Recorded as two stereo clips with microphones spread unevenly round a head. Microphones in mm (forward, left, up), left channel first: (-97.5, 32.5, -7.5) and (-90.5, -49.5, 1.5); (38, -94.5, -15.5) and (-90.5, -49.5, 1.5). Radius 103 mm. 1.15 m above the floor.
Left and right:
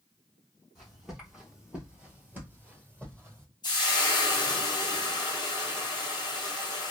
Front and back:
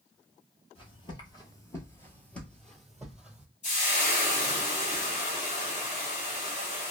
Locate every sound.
0.8 s footsteps: straight ahead, 1.3 m; by 3.5 s 125° right, 1.5 m
3.6 s frying: 35° left, 0.6 m